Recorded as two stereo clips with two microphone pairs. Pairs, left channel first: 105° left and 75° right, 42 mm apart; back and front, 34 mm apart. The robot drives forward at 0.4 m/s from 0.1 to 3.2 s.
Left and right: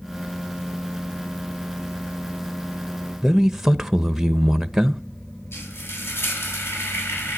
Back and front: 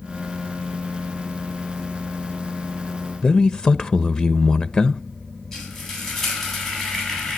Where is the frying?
100° left, 8.5 m.